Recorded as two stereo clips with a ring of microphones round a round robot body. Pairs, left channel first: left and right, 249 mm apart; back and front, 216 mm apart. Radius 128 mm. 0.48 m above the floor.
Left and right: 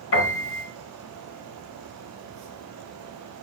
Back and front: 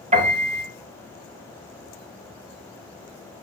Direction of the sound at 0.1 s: 55° left.